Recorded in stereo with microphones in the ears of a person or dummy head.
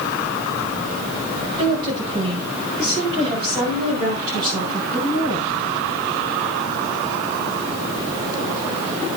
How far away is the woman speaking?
About 8.5 m.